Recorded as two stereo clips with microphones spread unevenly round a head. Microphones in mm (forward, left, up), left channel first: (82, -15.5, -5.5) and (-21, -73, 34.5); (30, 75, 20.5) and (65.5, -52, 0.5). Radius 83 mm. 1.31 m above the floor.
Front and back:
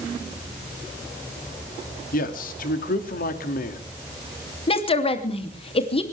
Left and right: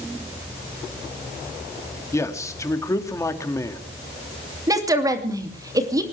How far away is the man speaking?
About 2 m.